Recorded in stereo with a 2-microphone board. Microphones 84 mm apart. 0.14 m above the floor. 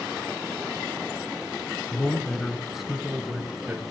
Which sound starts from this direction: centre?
A man speaking, at 1.9 s.